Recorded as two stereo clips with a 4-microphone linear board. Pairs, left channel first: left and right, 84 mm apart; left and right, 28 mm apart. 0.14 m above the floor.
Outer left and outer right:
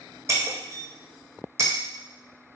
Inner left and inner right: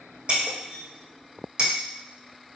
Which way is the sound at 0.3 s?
35° right (ahead or behind).